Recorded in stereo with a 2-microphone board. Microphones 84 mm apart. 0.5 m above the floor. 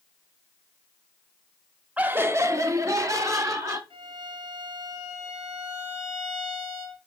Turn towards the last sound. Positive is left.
turn(degrees=-90)